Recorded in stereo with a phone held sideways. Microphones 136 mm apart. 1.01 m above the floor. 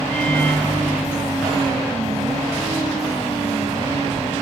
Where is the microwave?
45° left (ahead or behind), 3 m.